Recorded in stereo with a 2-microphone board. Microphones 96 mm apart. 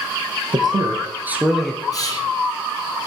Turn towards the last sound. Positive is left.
turn(degrees=40)  # may be behind; listen again after turning